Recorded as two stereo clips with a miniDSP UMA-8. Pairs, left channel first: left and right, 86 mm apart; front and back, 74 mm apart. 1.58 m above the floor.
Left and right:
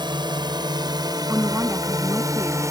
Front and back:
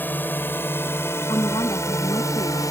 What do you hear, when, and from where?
0.0 s a drone: 65° right; by 2.7 s 40° right
1.3 s a woman speaking: 20° right